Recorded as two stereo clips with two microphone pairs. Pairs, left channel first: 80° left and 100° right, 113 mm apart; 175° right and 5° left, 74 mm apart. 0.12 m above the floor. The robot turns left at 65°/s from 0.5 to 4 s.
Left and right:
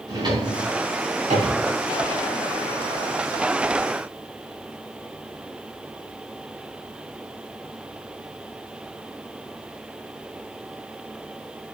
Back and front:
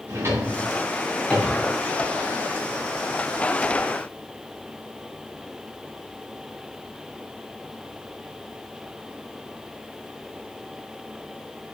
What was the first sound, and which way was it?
A drawer, 50° right.